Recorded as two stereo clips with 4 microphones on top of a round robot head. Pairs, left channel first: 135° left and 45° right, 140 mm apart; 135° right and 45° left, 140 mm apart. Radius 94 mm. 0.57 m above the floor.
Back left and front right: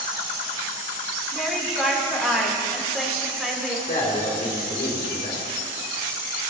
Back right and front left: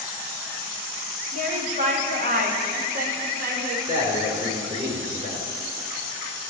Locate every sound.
1.3 s a woman speaking: 45° left, 1.9 m
3.9 s a man speaking: 100° left, 2.5 m